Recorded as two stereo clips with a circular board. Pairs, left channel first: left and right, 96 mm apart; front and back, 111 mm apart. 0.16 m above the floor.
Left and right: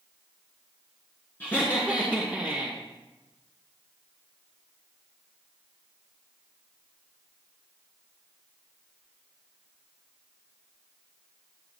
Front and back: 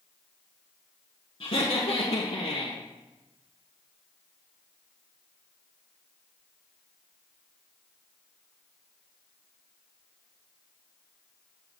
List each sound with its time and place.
1.4 s laughter: 25° left, 1.9 m; by 2.8 s 10° right, 1.9 m